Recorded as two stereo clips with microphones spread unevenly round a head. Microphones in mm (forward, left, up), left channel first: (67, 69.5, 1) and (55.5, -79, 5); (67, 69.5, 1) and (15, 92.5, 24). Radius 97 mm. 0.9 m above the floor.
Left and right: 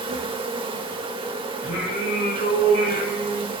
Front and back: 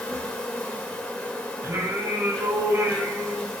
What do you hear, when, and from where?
0.0 s an insect: 55° right, 1.4 m
1.6 s singing: 115° left, 4 m